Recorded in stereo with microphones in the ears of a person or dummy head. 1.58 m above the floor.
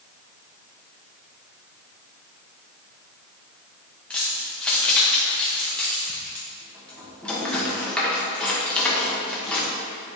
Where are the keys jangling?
10° left (ahead or behind), 1.0 m.